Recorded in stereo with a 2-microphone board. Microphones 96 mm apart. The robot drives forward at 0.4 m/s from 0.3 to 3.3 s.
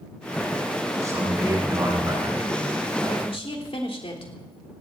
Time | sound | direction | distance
1.0 | a man speaking | 30° right (ahead or behind) | 10 m
3.2 | a woman speaking | 70° left (ahead or behind) | 3 m